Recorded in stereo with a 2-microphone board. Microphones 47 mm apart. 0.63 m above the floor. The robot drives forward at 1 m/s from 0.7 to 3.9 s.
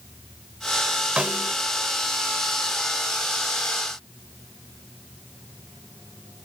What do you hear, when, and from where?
1.2 s a snare drum: 25° right (ahead or behind); by 1.6 s 45° right (ahead or behind)